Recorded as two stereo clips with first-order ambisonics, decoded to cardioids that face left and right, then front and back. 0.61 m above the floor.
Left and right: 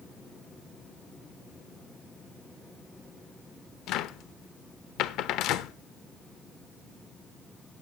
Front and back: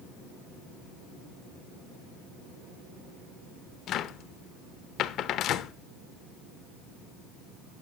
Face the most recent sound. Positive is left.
turn(degrees=50)